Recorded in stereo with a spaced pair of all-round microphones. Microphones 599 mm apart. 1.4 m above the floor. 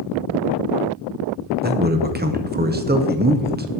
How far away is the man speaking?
About 0.6 m.